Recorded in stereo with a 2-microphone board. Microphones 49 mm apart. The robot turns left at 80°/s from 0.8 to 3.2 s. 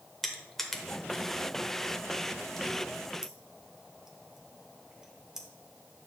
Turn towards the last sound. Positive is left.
turn(degrees=-10)  # may be behind; listen again after turning